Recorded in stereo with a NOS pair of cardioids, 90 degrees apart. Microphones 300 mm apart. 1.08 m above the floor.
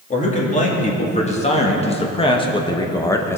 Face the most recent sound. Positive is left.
turn(degrees=10)